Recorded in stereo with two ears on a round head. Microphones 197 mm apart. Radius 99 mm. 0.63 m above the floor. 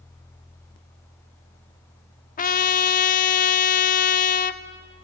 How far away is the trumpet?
About 0.9 m.